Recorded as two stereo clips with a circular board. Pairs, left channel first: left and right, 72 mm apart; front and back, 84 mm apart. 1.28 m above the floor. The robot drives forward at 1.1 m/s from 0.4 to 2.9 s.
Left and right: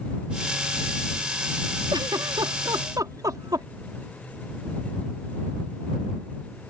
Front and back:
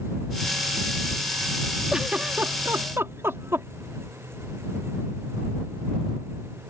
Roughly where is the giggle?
Right.